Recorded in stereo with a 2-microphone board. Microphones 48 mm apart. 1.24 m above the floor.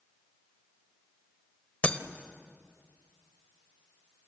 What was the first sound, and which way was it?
Breaking glass, 30° left (ahead or behind).